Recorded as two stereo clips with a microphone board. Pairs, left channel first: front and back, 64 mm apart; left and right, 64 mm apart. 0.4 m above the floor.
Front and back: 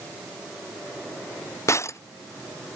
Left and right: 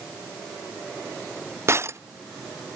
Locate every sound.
1.7 s breaking glass: 40° right